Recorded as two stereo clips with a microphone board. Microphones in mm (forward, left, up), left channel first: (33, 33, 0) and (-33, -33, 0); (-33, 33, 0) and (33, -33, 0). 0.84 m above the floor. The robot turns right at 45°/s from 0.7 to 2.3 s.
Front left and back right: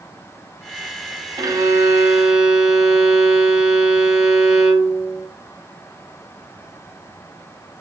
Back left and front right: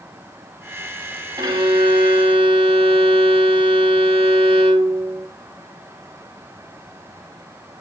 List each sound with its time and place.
1.4 s a violin: 90° right, 0.9 m; by 5.3 s 45° right, 0.9 m